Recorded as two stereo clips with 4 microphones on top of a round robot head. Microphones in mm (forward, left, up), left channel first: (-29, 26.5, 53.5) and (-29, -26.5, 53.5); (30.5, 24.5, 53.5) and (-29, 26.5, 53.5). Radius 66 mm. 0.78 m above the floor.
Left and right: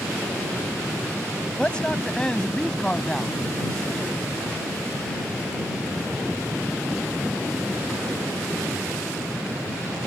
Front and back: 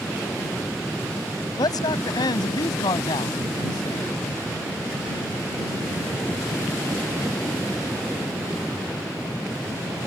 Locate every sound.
1.6 s a man speaking: 10° left; by 4.2 s 5° left